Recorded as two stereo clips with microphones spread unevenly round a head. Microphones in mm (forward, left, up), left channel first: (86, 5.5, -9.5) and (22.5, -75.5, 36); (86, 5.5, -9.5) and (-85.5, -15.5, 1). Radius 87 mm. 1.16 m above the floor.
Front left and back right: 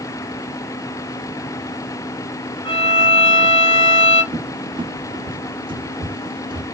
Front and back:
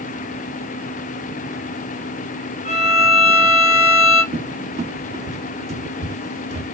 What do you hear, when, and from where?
2.6 s a violin: 55° left, 0.7 m
4.3 s a cupboard door: 125° right, 0.5 m